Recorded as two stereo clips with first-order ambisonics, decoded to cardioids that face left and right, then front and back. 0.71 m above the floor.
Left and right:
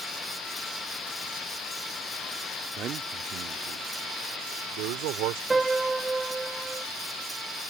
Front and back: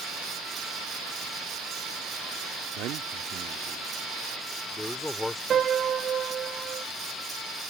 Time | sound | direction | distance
2.8 | a man speaking | 145° right | ?
5.5 | a piano | 160° right | ?